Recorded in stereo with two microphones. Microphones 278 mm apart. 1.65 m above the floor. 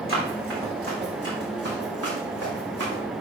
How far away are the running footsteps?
About 4.5 m.